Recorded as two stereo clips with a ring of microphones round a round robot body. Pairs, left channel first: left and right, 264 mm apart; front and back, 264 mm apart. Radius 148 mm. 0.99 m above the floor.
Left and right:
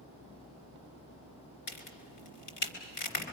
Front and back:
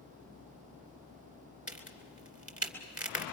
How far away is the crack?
About 3 m.